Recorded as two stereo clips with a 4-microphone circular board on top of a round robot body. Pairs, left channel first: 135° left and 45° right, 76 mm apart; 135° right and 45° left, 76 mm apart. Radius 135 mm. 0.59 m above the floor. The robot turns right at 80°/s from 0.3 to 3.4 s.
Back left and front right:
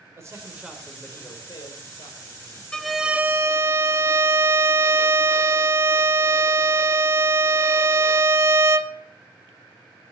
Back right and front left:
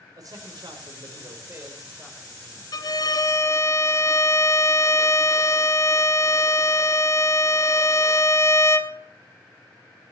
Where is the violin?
150° right, 1.2 m; by 8.9 s 95° right, 1.2 m.